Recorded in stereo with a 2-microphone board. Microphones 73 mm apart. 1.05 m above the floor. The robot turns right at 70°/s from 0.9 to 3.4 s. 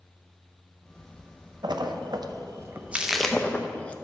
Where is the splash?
70° right (ahead or behind), 0.6 m; by 3.9 s 15° left (ahead or behind), 0.6 m.